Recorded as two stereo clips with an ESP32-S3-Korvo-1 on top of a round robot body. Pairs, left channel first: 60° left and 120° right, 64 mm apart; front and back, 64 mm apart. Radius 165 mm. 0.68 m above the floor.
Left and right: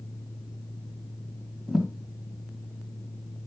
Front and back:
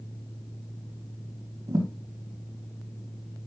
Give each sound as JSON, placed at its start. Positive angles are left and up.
{"t": 1.7, "sound": "a thud", "azimuth_deg": 150, "distance_m": 3.0}